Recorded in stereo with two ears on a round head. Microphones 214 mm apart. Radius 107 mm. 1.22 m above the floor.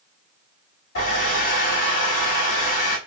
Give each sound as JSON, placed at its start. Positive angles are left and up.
{"t": 0.9, "sound": "a hair dryer", "side_deg": 60, "distance_m": 1.6}